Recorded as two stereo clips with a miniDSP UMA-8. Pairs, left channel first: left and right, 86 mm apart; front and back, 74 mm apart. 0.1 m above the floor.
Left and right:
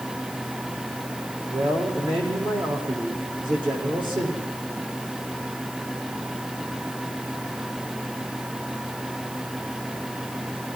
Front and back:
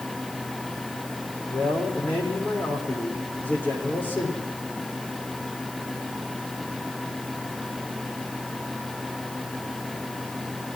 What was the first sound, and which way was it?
A man speaking, 65° right.